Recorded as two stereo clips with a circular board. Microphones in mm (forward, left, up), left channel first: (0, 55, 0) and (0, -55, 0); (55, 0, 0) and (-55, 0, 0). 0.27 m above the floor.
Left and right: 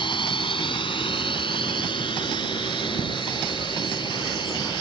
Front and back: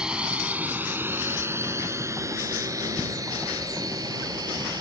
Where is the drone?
100° left; by 4.8 s 130° left.